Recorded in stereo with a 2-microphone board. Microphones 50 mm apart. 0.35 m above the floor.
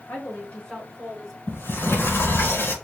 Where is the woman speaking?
40° left (ahead or behind), 1.5 m; by 1.4 s 5° right (ahead or behind), 1.3 m.